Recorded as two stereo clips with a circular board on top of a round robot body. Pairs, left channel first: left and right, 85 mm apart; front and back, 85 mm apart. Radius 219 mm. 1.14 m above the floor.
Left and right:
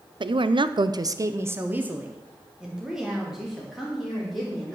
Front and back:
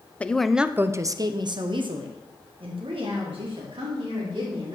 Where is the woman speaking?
75° right, 0.9 m; by 4.8 s straight behind, 3.5 m.